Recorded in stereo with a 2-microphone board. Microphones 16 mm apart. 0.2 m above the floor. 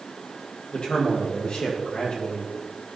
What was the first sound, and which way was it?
A man speaking, 70° left (ahead or behind).